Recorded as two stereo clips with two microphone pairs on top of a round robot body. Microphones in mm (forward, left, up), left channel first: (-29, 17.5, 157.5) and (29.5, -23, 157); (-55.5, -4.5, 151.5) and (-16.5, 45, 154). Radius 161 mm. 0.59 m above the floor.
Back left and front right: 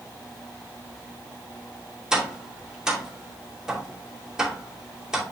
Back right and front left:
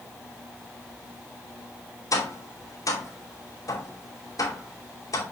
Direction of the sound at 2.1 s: 115° right.